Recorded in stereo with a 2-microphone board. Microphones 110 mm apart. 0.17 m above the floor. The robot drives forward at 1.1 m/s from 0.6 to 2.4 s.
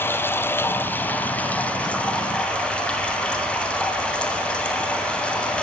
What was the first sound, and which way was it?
Running water, 20° left (ahead or behind).